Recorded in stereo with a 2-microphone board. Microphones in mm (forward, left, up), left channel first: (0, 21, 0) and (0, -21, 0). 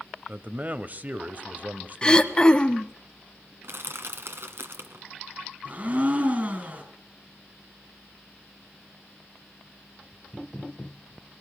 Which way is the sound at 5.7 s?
35° right (ahead or behind).